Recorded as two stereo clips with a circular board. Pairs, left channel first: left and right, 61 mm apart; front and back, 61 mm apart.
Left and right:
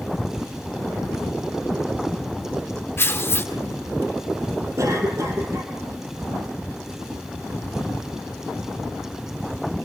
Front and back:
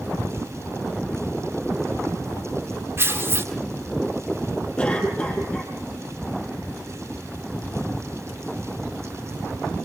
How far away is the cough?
About 4.5 m.